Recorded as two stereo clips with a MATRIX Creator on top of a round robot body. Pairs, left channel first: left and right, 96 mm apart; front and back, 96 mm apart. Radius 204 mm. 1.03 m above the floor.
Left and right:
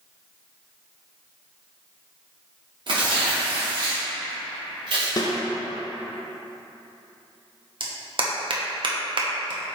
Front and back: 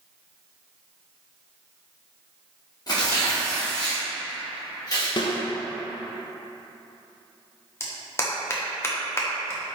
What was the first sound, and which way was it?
Tearing paper, 55° right.